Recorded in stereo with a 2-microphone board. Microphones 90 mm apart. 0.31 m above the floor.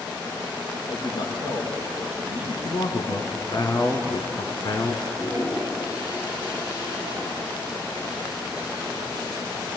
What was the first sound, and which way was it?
A man speaking, 65° left (ahead or behind).